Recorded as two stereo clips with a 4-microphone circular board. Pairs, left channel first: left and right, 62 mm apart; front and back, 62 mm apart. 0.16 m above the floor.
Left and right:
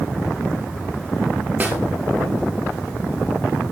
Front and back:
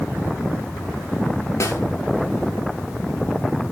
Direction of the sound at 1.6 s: 30° right.